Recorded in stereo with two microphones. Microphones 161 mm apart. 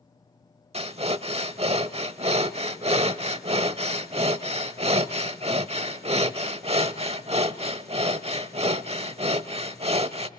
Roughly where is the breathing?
Right.